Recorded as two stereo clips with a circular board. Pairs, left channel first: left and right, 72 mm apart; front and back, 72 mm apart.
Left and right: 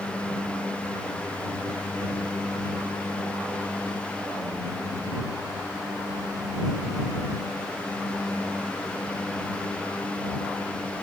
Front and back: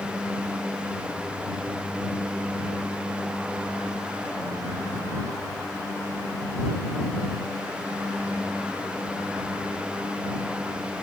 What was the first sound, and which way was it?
Only background noise.